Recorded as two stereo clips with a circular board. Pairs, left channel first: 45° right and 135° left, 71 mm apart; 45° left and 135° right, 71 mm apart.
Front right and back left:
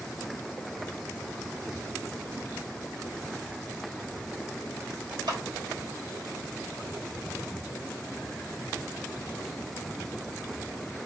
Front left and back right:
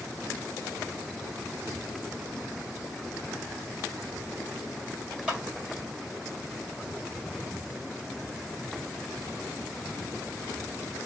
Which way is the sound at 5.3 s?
150° left.